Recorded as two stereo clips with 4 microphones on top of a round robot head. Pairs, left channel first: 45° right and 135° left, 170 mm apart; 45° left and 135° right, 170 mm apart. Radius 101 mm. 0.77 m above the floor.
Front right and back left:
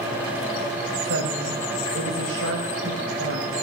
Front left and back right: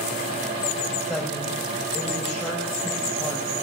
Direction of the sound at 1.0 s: 140° left.